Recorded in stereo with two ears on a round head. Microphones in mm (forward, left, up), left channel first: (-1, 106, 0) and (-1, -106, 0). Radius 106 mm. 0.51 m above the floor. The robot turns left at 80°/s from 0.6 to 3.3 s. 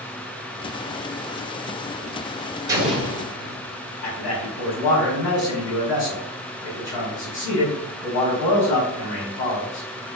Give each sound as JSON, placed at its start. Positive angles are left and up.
{"t": 2.7, "sound": "an explosion", "azimuth_deg": -160, "distance_m": 1.1}
{"t": 4.0, "sound": "a man speaking", "side_deg": 55, "distance_m": 1.8}